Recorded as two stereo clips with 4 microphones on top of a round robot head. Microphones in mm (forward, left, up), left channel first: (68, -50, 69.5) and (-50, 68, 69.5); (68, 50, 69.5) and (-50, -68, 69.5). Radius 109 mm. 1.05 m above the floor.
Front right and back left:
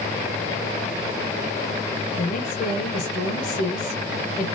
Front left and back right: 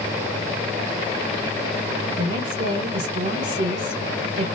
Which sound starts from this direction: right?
A woman speaking, at 2.1 s.